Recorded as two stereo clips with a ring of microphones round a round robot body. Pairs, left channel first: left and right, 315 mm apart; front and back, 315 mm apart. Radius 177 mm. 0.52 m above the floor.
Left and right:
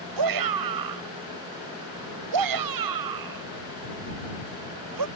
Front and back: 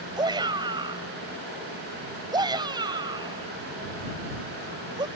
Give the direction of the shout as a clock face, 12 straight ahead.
3 o'clock.